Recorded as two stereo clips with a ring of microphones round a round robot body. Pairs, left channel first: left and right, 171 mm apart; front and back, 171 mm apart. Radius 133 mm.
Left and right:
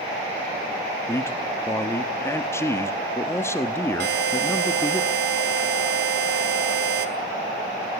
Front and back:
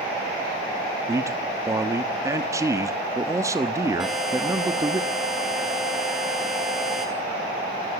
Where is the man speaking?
140° left, 1.1 m.